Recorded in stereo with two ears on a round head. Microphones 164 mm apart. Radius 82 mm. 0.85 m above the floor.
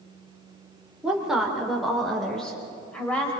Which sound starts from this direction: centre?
A woman speaking, at 1.0 s.